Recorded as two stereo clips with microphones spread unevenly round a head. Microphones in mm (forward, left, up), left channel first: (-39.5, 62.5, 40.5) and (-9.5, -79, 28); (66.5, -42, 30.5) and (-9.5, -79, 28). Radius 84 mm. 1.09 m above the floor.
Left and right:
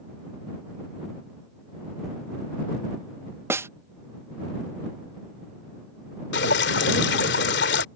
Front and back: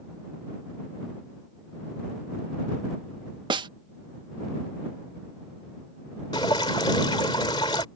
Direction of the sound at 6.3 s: 85° left.